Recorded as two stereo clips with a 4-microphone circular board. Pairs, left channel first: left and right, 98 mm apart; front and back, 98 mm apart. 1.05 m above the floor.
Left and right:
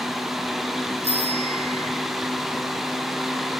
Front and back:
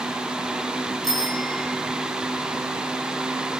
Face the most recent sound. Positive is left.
turn(degrees=-85)